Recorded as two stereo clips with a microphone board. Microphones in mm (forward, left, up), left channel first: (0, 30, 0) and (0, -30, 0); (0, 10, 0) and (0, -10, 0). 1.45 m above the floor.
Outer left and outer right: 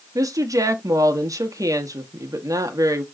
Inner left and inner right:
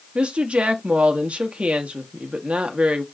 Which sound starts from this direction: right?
A woman speaking, at 0.1 s.